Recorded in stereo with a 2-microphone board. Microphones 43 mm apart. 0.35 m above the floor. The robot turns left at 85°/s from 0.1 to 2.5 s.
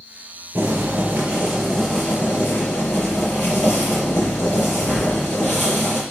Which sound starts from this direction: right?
Boiling, at 0.6 s.